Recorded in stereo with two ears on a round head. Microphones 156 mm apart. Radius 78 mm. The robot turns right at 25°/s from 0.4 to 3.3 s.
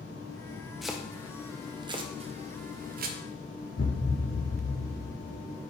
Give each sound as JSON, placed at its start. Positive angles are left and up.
{"t": 0.8, "sound": "chopping", "side_deg": 0, "distance_m": 0.6}
{"t": 3.8, "sound": "a thud", "side_deg": 60, "distance_m": 1.4}